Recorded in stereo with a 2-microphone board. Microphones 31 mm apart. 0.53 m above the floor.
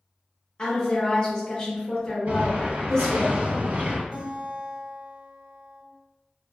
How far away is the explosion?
About 0.8 m.